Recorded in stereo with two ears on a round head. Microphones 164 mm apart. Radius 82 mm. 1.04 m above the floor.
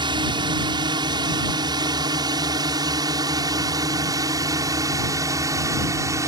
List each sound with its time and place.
0.0 s a drone: 25° right (ahead or behind); by 6.3 s 20° right (ahead or behind)